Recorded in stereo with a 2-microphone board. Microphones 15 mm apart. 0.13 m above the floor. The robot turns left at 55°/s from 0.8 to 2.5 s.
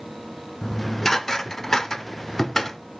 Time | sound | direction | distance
0.6 | dishes clattering | 20° left (ahead or behind) | 0.9 m